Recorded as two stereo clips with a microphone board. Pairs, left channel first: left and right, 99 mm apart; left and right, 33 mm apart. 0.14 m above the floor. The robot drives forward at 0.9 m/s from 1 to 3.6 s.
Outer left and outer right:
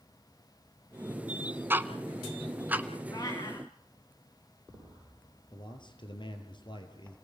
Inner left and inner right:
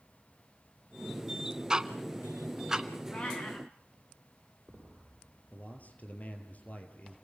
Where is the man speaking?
50° left (ahead or behind), 3 m.